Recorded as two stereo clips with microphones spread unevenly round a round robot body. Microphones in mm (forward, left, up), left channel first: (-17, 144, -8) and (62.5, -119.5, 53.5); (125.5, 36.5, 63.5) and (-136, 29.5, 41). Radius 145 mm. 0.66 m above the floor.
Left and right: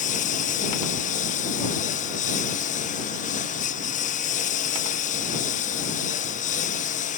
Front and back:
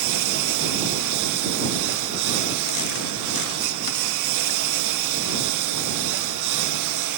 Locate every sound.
0.0 s a lawn mower: 170° left